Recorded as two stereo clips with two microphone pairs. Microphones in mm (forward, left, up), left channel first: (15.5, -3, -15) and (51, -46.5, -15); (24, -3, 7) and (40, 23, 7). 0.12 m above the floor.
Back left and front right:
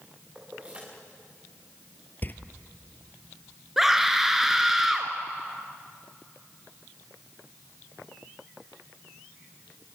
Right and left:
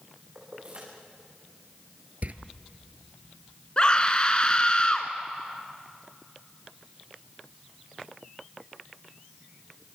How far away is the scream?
About 1.6 m.